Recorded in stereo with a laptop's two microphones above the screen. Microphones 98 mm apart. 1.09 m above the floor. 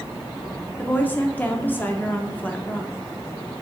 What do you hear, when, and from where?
0.8 s a woman speaking: 20° left (ahead or behind), 0.9 m